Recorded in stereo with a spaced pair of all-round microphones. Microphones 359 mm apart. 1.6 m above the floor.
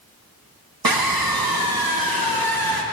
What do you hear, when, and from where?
0.8 s a scream: 75° right (ahead or behind), 1.4 m